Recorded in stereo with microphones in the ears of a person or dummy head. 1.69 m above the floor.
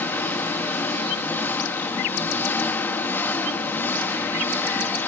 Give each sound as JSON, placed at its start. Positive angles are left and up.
{"t": 0.0, "sound": "an engine running", "side_deg": 10, "distance_m": 1.0}